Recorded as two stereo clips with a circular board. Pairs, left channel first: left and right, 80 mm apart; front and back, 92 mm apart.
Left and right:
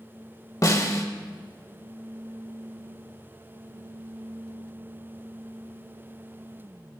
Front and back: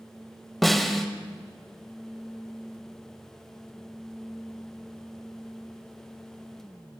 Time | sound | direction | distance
0.6 | a snare drum | 90° left | 1.7 m